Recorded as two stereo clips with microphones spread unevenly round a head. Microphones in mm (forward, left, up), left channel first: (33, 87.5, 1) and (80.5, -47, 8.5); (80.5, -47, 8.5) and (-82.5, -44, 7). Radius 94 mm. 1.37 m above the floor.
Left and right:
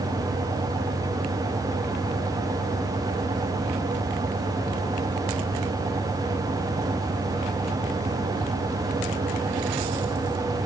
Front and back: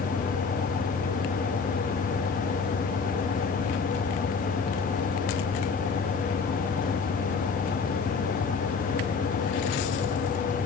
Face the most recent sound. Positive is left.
No sound to turn to.